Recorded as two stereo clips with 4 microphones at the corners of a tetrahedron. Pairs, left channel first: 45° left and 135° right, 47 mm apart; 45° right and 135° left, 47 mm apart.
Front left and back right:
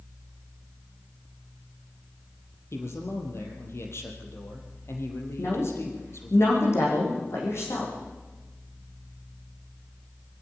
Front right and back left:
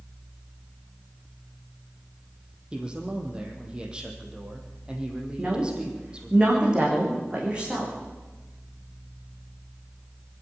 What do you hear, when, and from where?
2.7 s a man speaking: 65° left, 4 m
5.4 s a woman speaking: 65° left, 9 m